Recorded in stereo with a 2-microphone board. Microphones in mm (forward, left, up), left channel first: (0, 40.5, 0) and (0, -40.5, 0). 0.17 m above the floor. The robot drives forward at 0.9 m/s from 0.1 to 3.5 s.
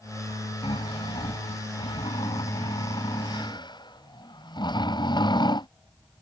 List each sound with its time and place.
0.6 s snoring: 85° left; by 5.7 s 60° left (ahead or behind)